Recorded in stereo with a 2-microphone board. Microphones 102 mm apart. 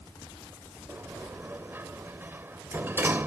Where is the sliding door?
20° right (ahead or behind).